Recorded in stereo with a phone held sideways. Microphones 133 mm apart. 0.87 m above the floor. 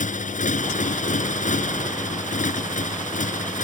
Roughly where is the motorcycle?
Left.